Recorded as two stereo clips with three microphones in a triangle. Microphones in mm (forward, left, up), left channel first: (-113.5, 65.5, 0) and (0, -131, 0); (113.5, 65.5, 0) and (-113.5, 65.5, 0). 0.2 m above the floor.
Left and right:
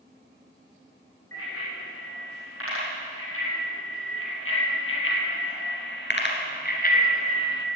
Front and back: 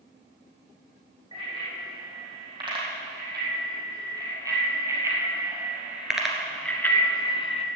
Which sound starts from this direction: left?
A bicycle bell, at 1.3 s.